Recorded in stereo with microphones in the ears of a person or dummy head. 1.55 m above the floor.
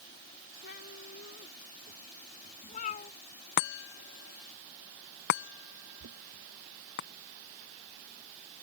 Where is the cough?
I don't hear a cough.